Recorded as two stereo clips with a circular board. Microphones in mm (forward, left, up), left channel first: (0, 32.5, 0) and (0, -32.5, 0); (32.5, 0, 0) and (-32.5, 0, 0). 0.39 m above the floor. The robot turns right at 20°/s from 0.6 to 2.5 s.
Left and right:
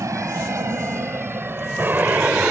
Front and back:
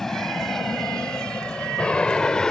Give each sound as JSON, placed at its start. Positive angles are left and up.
{"t": 0.0, "sound": "an aircraft", "azimuth_deg": -80}